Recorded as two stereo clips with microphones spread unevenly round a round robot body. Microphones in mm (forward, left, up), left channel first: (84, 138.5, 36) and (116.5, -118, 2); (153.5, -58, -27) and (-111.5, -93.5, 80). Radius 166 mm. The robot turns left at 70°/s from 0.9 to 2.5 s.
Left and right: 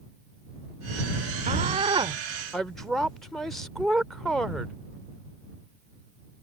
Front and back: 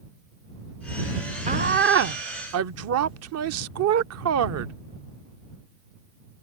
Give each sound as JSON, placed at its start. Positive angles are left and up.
{"t": 1.5, "sound": "a woman speaking", "azimuth_deg": -90}